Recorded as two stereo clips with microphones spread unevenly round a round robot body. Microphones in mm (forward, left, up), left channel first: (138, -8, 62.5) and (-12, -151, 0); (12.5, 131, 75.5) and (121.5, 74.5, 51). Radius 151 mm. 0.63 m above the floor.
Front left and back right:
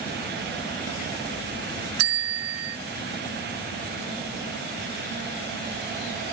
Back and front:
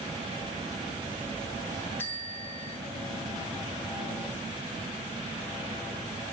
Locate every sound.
2.0 s a bell: 125° right, 0.6 m